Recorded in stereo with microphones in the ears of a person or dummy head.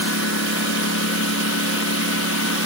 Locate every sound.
0.0 s a lawn mower: 80° left